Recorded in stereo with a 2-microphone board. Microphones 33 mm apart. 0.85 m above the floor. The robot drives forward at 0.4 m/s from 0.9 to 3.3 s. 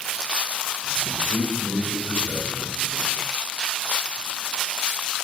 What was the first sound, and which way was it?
A man speaking, 80° left.